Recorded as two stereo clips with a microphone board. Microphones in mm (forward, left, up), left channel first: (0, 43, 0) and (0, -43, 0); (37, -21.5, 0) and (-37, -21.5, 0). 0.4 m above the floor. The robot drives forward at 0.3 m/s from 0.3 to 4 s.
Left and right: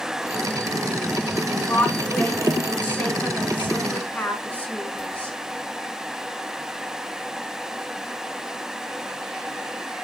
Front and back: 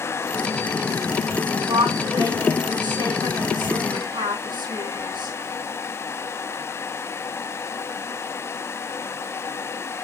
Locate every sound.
1.6 s a woman speaking: 160° left, 3 m; by 5.4 s 165° left, 3.5 m